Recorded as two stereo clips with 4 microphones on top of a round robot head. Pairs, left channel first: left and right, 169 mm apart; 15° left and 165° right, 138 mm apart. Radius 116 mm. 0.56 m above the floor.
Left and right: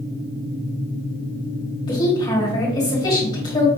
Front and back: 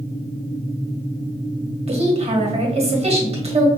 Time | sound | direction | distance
1.9 | a woman speaking | 155° left | 1.6 m